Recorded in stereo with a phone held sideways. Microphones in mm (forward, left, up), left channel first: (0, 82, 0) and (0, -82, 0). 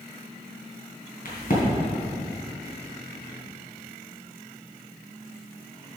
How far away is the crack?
About 3 m.